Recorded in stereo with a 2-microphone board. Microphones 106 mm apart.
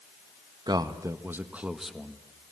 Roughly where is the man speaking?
Right.